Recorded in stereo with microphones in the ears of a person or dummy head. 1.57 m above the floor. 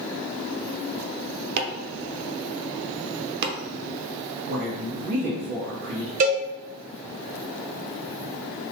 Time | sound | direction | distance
1.6 | chopping | 60° right (ahead or behind) | 0.6 m
4.5 | a woman speaking | 55° right (ahead or behind) | 1.5 m
6.2 | a cowbell | 45° right (ahead or behind) | 0.9 m